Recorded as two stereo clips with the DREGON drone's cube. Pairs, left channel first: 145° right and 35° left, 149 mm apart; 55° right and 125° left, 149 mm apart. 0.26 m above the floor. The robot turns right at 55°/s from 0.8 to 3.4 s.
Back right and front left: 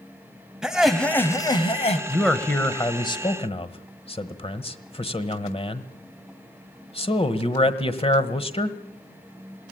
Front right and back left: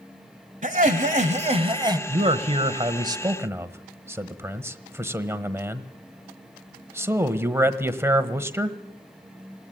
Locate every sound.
0.6 s laughter: 120° left, 1.5 m; by 2.0 s 175° right, 1.5 m
2.1 s a man speaking: 120° left, 1.3 m; by 8.8 s 170° right, 1.3 m